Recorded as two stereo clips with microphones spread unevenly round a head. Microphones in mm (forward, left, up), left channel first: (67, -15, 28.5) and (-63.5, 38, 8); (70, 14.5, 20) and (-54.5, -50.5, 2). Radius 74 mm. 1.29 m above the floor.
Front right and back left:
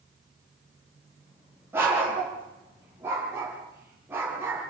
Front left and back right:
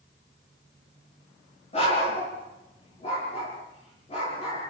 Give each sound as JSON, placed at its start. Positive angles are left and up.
{"t": 1.7, "sound": "a dog barking", "azimuth_deg": 80, "distance_m": 7.5}